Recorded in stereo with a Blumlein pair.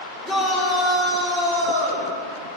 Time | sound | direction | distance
0.2 | a shout | straight ahead | 3.5 m